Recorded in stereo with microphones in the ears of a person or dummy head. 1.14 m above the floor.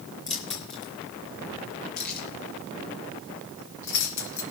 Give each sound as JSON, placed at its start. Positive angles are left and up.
{"t": 0.3, "sound": "keys jangling", "side_deg": 30, "distance_m": 2.5}